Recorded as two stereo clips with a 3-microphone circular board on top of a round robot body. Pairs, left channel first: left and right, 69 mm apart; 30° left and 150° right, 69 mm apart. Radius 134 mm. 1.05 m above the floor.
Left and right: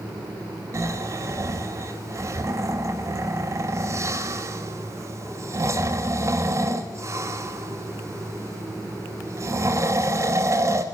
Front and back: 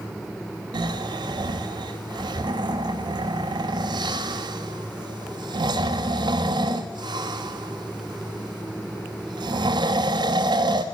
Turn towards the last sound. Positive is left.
turn(degrees=-140)